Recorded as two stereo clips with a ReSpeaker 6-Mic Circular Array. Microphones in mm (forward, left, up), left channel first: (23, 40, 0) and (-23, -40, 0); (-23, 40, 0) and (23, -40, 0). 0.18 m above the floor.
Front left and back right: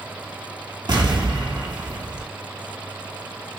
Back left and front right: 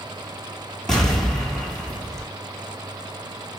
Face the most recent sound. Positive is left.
turn(degrees=-155)